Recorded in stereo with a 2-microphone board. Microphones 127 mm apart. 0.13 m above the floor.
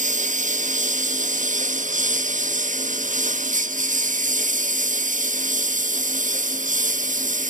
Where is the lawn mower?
75° right (ahead or behind); by 7.5 s 85° right.